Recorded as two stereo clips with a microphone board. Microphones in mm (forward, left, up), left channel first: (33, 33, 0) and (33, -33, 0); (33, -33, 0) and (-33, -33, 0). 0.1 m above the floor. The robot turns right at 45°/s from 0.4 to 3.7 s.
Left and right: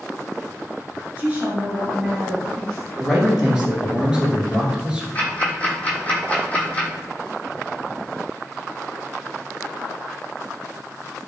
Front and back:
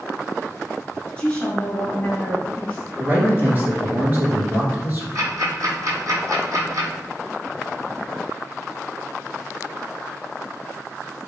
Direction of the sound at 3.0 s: 170° left.